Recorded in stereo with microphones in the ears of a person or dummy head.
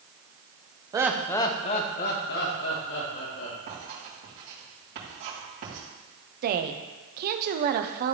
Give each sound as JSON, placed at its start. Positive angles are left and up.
{"t": 0.9, "sound": "laughter", "side_deg": -20, "distance_m": 0.8}
{"t": 3.7, "sound": "writing", "side_deg": -60, "distance_m": 3.5}
{"t": 6.4, "sound": "a woman speaking", "side_deg": -50, "distance_m": 0.8}